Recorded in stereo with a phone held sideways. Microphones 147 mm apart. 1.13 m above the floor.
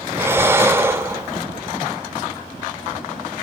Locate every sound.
0.1 s breathing: 15° right (ahead or behind), 0.8 m